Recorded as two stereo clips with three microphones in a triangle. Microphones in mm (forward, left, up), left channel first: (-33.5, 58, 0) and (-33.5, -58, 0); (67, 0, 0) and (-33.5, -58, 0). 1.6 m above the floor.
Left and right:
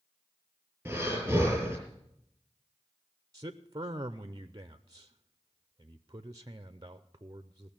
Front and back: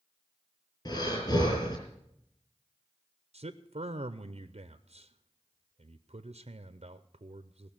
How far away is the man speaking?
About 0.6 m.